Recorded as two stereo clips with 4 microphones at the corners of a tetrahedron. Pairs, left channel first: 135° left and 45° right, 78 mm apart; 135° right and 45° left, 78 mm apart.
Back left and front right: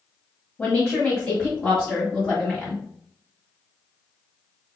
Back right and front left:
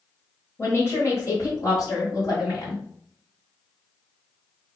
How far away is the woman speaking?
About 1.6 m.